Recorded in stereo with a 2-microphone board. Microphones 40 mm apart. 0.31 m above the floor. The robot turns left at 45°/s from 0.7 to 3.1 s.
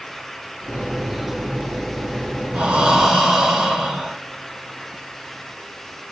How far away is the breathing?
About 1.1 m.